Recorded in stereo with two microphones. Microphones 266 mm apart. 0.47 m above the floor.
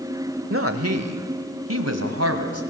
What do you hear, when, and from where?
0.5 s a woman speaking: 50° right (ahead or behind), 1.6 m; by 2.6 s 65° right (ahead or behind), 3 m